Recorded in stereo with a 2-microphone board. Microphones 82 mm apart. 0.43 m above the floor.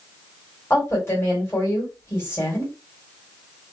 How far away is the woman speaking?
About 1.8 m.